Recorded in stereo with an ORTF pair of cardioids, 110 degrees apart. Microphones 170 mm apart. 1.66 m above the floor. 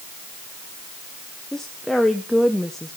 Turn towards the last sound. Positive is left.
turn(degrees=5)